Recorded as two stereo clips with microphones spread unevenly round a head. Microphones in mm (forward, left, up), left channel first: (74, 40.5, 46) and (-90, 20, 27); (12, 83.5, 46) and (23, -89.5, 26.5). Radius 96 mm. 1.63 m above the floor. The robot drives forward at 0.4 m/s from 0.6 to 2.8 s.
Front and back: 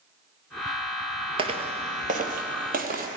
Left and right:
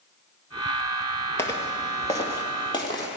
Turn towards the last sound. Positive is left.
turn(degrees=155)